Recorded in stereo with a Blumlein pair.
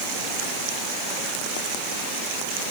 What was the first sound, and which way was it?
Only background noise.